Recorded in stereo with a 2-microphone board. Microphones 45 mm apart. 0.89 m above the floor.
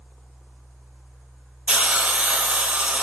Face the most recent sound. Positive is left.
turn(degrees=-25)  # may be behind; listen again after turning